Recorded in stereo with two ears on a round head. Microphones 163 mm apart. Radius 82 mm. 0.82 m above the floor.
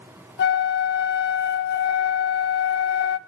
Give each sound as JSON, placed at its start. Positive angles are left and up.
{"t": 0.4, "sound": "a flute", "side_deg": 60, "distance_m": 0.8}